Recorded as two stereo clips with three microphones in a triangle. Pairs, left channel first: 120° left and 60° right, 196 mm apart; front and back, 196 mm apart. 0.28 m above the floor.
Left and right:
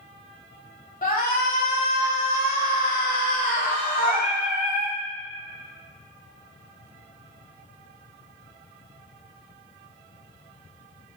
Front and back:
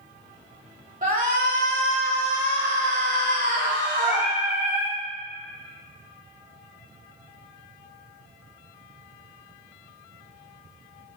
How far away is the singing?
About 1.2 m.